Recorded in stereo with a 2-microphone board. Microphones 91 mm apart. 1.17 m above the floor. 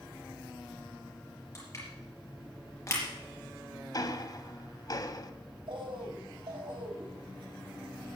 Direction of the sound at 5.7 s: 65° right (ahead or behind).